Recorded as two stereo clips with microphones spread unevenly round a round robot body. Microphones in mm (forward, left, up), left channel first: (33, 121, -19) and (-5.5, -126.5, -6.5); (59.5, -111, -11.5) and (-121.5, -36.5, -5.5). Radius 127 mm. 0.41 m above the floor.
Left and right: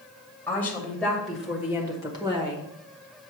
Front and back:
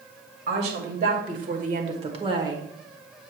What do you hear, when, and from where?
0.5 s a woman speaking: 160° left, 1.8 m; by 2.7 s 140° right, 1.2 m